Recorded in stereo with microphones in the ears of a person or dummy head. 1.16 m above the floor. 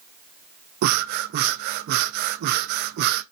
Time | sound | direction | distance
0.8 | breathing | 50° right (ahead or behind) | 0.6 m